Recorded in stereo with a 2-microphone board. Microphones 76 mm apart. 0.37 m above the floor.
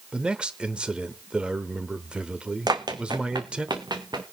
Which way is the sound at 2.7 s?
65° right (ahead or behind).